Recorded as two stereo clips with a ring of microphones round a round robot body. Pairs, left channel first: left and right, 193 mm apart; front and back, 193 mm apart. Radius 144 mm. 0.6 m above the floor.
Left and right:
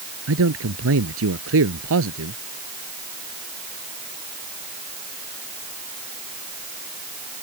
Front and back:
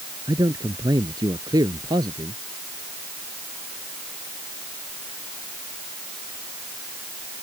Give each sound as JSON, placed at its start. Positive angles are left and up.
{"t": 0.3, "sound": "a man speaking", "azimuth_deg": -105}